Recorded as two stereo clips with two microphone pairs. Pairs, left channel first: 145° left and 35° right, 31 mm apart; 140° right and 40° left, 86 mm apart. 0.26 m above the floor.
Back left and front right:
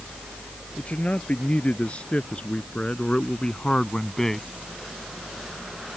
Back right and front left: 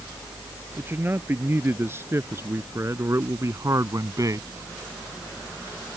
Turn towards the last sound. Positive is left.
turn(degrees=70)